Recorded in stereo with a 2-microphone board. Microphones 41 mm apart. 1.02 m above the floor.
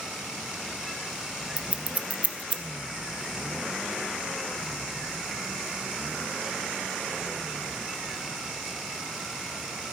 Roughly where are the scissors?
Right.